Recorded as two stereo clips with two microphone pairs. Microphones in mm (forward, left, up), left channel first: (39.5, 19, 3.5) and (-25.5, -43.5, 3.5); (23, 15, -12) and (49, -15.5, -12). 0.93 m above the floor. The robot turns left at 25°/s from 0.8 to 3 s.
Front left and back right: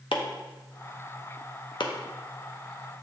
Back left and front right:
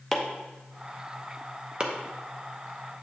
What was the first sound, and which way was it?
Chopping, 45° left.